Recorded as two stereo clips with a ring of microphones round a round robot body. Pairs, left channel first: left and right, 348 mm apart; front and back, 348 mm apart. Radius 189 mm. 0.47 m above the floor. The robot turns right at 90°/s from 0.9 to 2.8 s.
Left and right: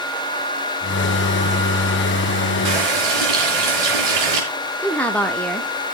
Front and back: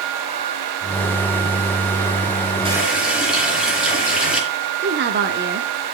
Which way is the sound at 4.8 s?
170° left.